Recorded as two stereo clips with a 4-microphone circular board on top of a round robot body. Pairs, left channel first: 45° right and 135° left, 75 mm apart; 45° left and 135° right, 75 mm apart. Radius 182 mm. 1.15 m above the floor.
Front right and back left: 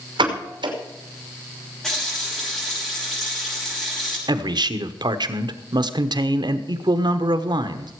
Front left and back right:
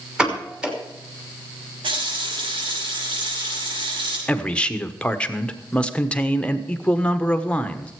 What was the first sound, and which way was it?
A pop, 145° left.